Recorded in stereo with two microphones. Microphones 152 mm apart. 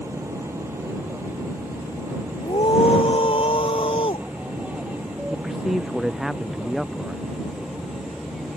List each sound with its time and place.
0.0 s an aircraft: 20° right (ahead or behind); by 8.6 s centre (ahead or behind)
2.4 s a scream: 40° left (ahead or behind)
5.3 s a man speaking: centre (ahead or behind)